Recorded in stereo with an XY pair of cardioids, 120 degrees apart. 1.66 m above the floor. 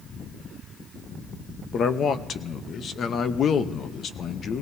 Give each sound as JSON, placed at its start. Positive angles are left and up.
{"t": 1.7, "sound": "a man speaking", "azimuth_deg": 45, "distance_m": 0.8}